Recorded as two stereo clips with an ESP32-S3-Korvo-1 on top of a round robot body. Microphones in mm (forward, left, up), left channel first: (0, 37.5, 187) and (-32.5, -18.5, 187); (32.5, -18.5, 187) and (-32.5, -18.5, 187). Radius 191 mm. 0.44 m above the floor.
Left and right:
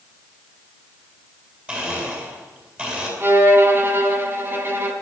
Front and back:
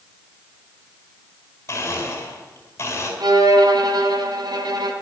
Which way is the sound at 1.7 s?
50° right.